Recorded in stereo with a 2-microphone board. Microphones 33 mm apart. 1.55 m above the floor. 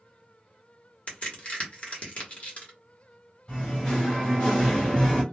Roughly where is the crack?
Left.